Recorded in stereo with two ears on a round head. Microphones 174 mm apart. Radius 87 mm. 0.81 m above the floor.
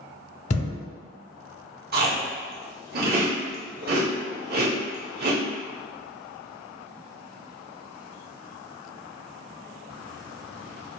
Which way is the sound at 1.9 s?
50° right (ahead or behind).